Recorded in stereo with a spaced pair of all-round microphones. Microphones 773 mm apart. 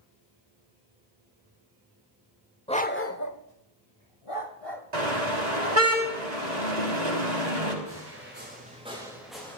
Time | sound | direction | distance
2.7 | a dog barking | 5° left (ahead or behind) | 1.1 m
4.9 | a car horn | 60° right (ahead or behind) | 6 m
7.8 | footsteps | 20° right (ahead or behind) | 7 m